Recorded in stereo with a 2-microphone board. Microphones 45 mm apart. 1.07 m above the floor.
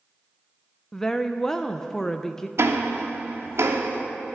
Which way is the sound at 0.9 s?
10° left (ahead or behind).